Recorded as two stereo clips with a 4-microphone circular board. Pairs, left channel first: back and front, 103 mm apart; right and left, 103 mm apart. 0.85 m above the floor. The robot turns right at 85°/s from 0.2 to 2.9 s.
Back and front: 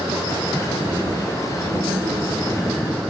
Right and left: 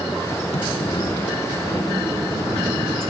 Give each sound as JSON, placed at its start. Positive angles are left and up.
{"t": 0.5, "sound": "a sliding door", "azimuth_deg": -95, "distance_m": 4.0}